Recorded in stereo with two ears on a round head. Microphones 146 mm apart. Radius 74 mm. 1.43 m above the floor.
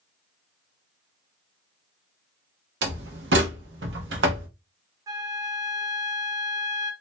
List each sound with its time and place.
2.8 s a door slam: 80° right, 0.9 m
5.1 s a flute: 20° right (ahead or behind), 0.8 m